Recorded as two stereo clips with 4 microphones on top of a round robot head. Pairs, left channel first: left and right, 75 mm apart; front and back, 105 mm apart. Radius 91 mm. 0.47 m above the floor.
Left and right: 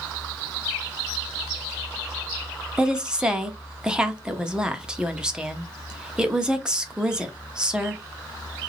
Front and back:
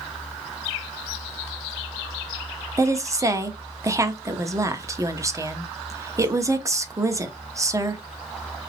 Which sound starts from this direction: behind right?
A woman speaking, at 2.8 s.